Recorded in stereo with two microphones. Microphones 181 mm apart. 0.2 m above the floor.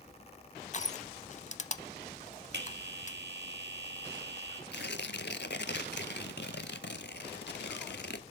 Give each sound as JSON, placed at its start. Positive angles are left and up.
{"t": 0.7, "sound": "crushing", "side_deg": 40, "distance_m": 0.5}
{"t": 2.5, "sound": "a bell", "side_deg": -75, "distance_m": 2.5}
{"t": 4.7, "sound": "tearing paper", "side_deg": 75, "distance_m": 0.7}